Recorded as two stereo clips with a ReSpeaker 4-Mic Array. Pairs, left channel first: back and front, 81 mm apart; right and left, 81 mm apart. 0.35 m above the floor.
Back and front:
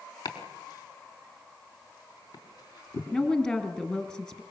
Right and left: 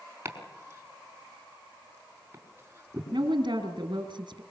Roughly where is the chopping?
Behind left.